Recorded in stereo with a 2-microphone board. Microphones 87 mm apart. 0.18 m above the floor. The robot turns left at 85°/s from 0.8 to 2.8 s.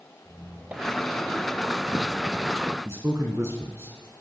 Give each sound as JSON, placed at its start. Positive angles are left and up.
{"t": 0.2, "sound": "a squeak", "azimuth_deg": -20, "distance_m": 2.5}
{"t": 2.9, "sound": "a man speaking", "side_deg": -30, "distance_m": 2.0}